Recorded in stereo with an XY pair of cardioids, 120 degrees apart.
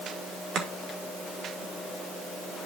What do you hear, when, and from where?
0.6 s chopping: 60° right, 2.5 m